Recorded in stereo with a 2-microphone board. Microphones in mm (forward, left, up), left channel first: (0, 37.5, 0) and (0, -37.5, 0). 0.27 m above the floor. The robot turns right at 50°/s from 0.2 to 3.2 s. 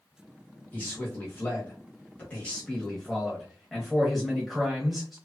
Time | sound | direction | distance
0.7 | a man speaking | 20° left (ahead or behind) | 1.0 m